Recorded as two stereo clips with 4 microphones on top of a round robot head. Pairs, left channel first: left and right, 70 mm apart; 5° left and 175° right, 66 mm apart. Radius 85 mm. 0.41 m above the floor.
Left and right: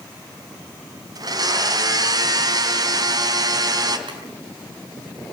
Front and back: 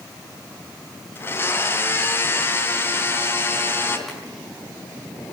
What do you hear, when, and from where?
1.1 s a blender: 55° right, 3 m
4.1 s boiling: 85° right, 7.5 m